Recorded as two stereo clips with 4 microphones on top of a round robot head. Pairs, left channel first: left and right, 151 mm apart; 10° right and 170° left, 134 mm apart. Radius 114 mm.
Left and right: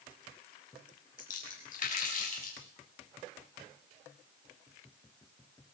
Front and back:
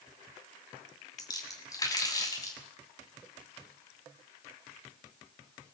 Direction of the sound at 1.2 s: 50° left.